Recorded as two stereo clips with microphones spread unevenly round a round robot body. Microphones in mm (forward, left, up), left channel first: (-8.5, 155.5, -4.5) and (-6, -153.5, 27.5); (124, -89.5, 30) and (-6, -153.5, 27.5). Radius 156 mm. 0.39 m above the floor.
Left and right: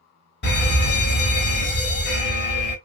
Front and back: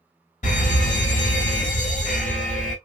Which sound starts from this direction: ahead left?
A fire alarm, at 0.4 s.